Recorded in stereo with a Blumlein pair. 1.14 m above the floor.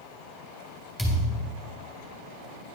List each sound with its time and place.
1.0 s a thud: 10° right, 2.5 m